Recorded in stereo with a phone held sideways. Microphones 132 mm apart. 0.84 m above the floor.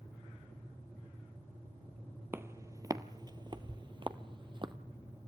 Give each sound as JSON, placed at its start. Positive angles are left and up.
{"t": 2.3, "sound": "footsteps", "side_deg": -20, "distance_m": 1.0}